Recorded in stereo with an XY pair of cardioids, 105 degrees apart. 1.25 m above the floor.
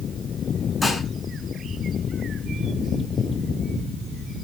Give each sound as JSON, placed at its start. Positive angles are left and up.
{"t": 0.8, "sound": "dishes clattering", "azimuth_deg": 20, "distance_m": 8.5}